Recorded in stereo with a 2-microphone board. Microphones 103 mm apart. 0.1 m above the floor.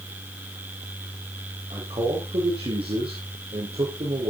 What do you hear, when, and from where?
1.7 s a man speaking: 70° right (ahead or behind), 4 m